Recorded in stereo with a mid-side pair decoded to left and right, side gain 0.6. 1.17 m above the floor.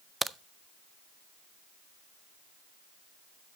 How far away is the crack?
About 0.6 m.